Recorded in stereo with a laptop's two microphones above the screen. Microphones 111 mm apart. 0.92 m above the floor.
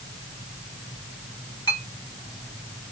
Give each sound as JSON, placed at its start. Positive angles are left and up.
{"t": 1.7, "sound": "a clink", "side_deg": 40, "distance_m": 2.5}